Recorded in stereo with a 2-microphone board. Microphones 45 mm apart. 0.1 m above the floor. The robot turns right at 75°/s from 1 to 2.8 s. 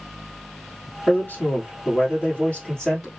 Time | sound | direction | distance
1.1 | a man speaking | 40° left | 2 m